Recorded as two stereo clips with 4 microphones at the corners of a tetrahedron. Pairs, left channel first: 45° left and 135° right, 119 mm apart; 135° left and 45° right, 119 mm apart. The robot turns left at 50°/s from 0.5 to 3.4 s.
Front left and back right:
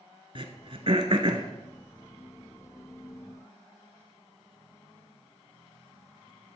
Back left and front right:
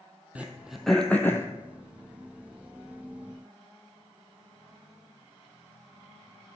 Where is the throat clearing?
120° right, 1.2 m; by 1.5 s 165° right, 1.2 m.